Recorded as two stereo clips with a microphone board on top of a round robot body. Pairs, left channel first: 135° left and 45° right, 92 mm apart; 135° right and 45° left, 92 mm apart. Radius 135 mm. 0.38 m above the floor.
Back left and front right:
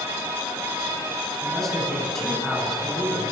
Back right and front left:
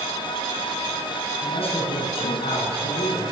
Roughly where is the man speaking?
Behind right.